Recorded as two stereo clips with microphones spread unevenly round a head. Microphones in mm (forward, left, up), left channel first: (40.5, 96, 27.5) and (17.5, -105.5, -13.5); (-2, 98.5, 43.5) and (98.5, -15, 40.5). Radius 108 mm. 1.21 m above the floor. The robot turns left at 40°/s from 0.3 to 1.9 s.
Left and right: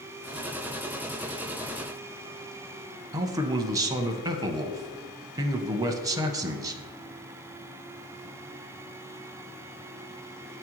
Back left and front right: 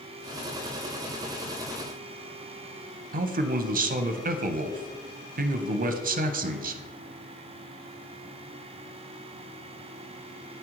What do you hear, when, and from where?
3.1 s a man speaking: 30° right, 0.6 m